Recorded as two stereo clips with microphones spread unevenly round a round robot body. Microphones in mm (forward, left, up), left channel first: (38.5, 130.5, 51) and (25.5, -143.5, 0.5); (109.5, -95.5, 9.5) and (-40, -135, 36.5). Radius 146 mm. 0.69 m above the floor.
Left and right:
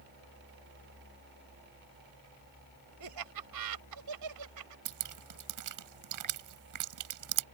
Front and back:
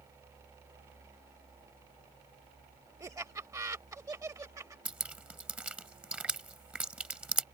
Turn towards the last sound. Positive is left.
turn(degrees=-80)